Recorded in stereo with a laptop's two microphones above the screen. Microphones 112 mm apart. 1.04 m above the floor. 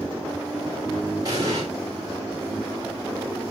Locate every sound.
1.2 s an explosion: 35° right (ahead or behind), 3.5 m